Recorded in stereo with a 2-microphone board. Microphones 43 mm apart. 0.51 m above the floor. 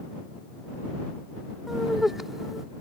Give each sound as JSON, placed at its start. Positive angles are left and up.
{"t": 1.7, "sound": "laughter", "side_deg": -10}